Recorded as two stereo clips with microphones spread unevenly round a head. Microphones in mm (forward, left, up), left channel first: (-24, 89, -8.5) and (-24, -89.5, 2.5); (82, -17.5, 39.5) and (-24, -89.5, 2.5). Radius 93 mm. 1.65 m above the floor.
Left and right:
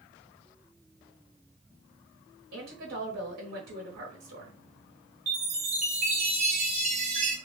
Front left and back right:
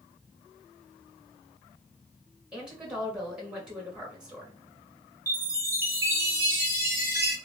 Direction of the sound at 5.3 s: 65° right.